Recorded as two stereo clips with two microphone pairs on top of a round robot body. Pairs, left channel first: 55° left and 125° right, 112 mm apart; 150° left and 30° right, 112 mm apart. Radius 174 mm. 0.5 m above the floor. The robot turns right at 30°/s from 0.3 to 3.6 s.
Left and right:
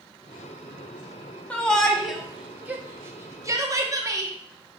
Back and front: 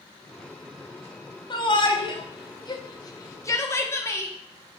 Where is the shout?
140° left, 1.6 m; by 4.3 s 160° right, 1.6 m.